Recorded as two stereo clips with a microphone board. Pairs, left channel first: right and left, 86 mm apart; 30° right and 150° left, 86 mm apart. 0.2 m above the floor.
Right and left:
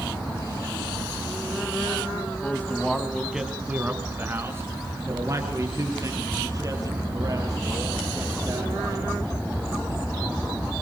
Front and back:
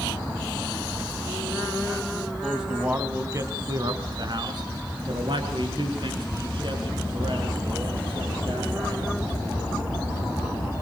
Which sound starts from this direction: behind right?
A man speaking, at 2.4 s.